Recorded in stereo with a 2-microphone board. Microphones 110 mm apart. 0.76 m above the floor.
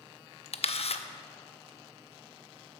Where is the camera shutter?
65° left (ahead or behind), 0.5 m.